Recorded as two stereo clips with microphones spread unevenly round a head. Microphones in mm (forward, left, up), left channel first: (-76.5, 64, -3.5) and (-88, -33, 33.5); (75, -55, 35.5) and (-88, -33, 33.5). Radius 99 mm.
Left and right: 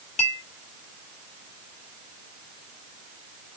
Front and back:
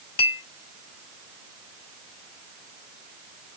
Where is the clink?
35° left, 1.5 m.